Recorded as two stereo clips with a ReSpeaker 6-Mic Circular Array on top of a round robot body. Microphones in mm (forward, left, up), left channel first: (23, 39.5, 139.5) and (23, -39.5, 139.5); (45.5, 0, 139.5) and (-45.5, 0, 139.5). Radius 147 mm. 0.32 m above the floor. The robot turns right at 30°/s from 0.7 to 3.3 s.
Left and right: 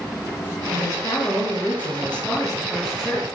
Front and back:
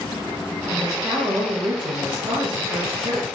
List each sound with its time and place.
0.7 s a woman speaking: 120° left, 3 m; by 3.3 s 160° right, 3 m